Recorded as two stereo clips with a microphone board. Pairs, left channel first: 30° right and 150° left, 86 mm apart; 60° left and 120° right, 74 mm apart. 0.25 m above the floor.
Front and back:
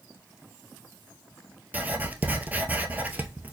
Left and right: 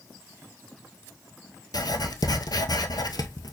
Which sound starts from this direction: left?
Writing, at 1.7 s.